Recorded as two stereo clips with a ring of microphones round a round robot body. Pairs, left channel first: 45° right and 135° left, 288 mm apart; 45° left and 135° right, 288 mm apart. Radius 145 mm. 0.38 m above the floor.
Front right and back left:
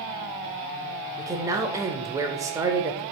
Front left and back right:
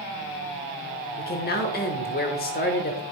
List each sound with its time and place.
1.2 s a man speaking: 65° left, 0.9 m